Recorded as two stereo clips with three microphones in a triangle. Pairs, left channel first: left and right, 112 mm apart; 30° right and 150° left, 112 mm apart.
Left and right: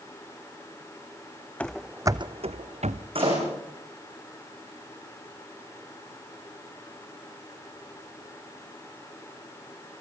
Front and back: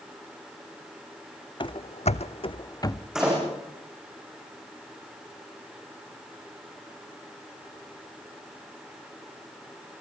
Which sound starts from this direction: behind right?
A door slam, at 3.1 s.